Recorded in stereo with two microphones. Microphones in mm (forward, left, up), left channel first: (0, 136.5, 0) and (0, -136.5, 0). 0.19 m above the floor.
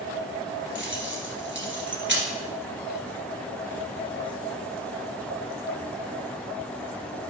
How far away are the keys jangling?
About 2 m.